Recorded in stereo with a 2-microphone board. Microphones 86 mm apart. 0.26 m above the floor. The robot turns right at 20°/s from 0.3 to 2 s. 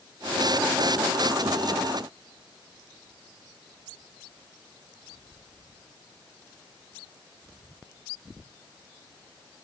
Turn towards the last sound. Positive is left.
No sound to turn to.